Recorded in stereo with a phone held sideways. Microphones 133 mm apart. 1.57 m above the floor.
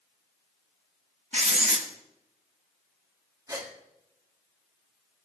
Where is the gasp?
30° right (ahead or behind), 1.6 m.